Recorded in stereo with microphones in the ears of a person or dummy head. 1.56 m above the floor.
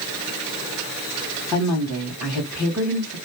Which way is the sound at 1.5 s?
Centre (ahead or behind).